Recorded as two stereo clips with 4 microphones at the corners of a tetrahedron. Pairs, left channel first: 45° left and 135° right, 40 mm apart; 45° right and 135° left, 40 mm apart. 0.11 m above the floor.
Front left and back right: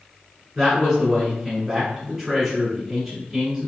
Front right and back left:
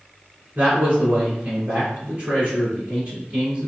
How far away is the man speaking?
About 1.8 m.